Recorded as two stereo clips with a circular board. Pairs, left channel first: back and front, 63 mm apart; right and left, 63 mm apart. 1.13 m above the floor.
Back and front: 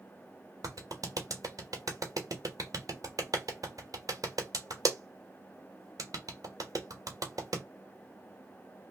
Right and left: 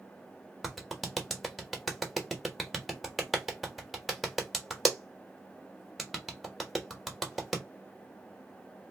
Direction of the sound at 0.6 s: Straight ahead.